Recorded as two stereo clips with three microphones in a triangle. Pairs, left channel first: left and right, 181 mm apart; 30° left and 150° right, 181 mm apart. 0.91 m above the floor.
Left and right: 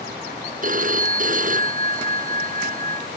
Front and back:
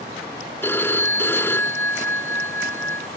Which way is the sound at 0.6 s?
50° right.